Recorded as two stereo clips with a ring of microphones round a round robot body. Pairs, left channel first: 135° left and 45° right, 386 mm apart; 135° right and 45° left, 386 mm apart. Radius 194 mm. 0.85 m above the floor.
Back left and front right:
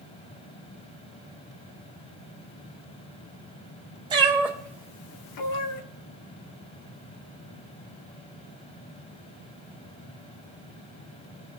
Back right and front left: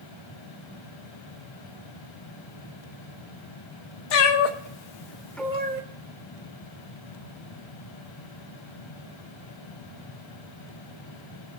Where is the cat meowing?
125° right, 1.5 m; by 5.8 s 105° left, 1.0 m.